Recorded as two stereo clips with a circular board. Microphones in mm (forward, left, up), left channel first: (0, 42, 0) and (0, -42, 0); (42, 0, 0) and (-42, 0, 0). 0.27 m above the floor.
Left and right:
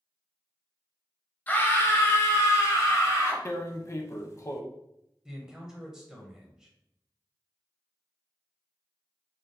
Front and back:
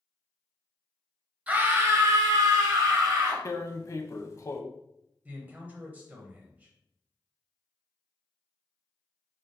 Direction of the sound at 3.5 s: 45° left.